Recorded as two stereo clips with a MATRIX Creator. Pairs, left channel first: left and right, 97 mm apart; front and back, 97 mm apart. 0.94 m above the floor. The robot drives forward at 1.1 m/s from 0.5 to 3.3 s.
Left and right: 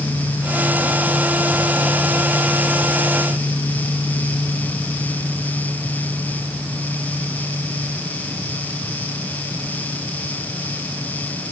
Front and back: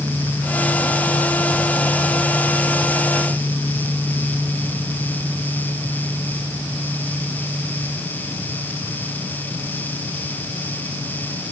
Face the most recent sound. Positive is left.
No sound to turn to.